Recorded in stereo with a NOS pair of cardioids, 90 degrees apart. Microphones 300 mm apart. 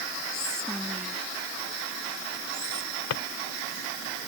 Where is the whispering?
Straight ahead.